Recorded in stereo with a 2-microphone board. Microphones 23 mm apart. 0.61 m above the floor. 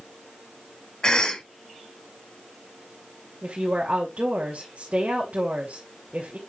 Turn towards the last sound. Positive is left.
turn(degrees=-70)  # may be behind; listen again after turning